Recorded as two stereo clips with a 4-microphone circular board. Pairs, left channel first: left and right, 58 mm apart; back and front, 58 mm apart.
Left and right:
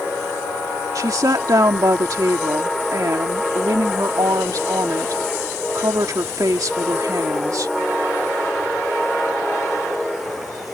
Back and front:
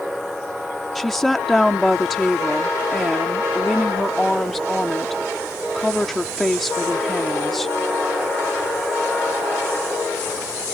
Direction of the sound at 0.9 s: 95° right.